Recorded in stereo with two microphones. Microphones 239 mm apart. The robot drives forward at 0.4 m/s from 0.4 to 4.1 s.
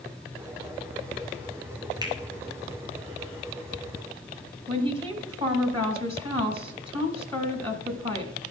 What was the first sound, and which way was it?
A finger snap, 15° right (ahead or behind).